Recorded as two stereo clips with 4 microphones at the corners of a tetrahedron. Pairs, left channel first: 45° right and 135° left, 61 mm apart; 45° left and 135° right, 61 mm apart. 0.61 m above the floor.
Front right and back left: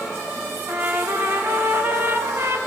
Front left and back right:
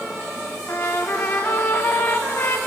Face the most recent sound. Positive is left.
turn(degrees=95)